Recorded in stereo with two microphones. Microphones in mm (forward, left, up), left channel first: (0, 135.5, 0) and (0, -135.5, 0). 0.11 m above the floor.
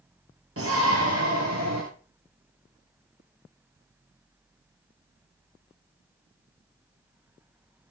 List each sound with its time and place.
0.6 s a shout: 55° right (ahead or behind), 2 m; by 1.8 s 70° right (ahead or behind), 3 m